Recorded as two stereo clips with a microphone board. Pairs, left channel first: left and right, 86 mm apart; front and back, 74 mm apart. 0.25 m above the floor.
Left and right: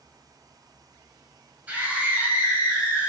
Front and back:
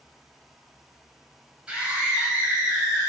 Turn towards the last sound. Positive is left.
turn(degrees=-130)